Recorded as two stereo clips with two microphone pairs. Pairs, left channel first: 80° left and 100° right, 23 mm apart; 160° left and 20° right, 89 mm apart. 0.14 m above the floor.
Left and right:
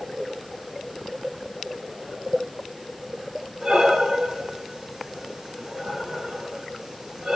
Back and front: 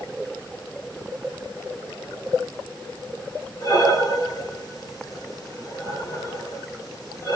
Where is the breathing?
165° right, 1.7 m.